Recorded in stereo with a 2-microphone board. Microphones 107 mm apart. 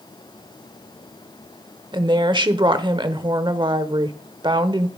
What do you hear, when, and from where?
1.9 s a woman speaking: 50° right (ahead or behind), 1.0 m